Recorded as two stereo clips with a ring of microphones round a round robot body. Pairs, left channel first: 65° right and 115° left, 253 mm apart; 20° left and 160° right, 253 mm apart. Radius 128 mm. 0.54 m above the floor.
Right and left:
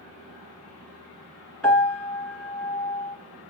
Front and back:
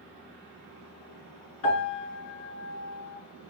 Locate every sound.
1.6 s a piano: 20° left, 2.5 m